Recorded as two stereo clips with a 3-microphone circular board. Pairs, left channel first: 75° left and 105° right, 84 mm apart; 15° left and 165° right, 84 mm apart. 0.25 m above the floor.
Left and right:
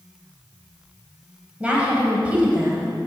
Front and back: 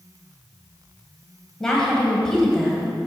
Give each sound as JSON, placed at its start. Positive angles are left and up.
{"t": 1.6, "sound": "a woman speaking", "azimuth_deg": -60, "distance_m": 1.6}